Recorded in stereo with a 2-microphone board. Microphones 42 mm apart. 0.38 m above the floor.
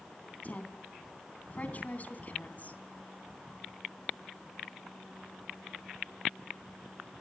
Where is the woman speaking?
40° left (ahead or behind), 3 m.